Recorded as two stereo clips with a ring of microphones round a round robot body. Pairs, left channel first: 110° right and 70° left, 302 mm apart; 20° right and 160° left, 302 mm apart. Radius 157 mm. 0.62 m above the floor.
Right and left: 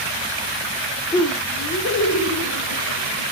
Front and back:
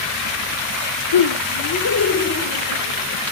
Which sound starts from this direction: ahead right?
Laughter, at 1.1 s.